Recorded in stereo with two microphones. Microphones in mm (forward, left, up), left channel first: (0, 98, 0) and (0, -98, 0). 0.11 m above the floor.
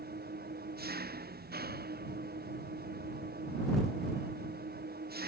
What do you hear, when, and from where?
0.0 s an engine running: 55° right (ahead or behind)